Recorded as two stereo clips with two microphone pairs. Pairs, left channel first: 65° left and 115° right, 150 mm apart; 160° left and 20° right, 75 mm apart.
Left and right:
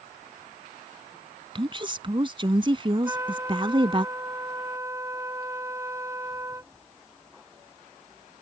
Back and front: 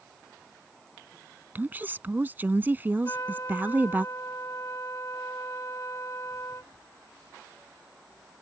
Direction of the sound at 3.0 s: Straight behind.